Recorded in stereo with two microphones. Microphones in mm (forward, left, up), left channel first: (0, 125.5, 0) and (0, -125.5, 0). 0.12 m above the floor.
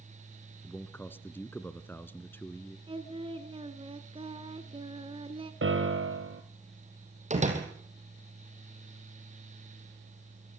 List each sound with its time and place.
0.6 s a man speaking: 10° left (ahead or behind), 1.2 m
2.9 s singing: 20° right (ahead or behind), 1.4 m
5.6 s a piano: 55° right (ahead or behind), 2 m
7.3 s a door slam: 30° right (ahead or behind), 3.5 m